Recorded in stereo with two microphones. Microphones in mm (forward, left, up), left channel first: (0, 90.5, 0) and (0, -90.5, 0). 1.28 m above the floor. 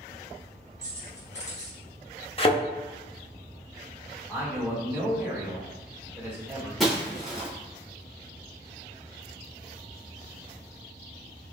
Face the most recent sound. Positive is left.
turn(degrees=0)  # may be behind; listen again after turning